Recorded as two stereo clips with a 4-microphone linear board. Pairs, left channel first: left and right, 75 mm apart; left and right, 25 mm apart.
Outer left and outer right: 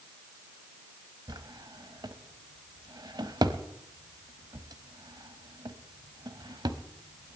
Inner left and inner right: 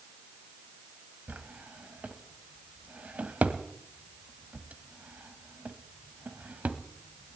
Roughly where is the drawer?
Right.